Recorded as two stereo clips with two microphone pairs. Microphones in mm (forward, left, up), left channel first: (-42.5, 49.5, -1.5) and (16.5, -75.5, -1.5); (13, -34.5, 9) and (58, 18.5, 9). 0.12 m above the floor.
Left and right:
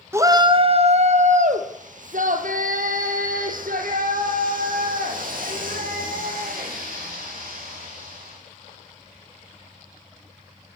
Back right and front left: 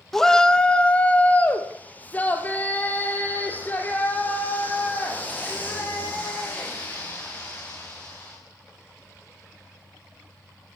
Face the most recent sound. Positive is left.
turn(degrees=-65)